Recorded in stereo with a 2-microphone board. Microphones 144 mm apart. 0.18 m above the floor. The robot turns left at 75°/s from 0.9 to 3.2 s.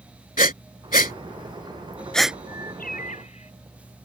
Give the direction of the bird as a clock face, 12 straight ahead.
9 o'clock.